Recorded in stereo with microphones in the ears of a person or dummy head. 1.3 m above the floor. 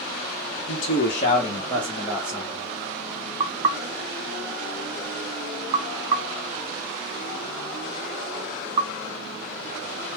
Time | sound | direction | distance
0.7 | a man speaking | 70° left (ahead or behind) | 1.0 m
3.4 | knocking | 30° right (ahead or behind) | 0.5 m